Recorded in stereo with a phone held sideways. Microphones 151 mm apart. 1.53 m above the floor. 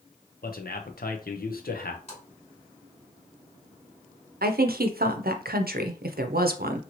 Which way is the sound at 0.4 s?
80° left.